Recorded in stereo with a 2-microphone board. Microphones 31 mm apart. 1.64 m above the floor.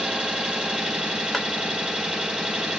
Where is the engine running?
25° right (ahead or behind), 1.1 m.